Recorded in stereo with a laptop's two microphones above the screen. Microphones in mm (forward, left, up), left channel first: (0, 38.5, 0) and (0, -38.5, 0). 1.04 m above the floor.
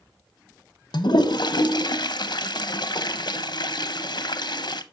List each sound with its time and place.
0.9 s a toilet flushing: 65° left (ahead or behind), 0.8 m